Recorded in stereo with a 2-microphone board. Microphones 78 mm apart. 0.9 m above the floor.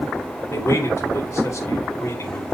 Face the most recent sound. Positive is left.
turn(degrees=40)  # may be behind; listen again after turning